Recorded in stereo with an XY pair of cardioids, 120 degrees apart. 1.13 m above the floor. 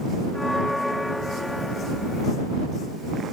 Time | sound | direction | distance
0.3 | a bell | 5° left | ?